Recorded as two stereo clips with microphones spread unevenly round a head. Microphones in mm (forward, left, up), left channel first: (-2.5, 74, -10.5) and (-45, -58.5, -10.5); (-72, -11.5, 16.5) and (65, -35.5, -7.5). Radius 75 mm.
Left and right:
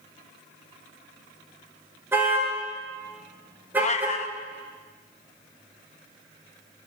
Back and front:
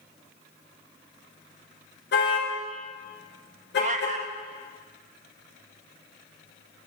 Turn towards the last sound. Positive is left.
turn(degrees=35)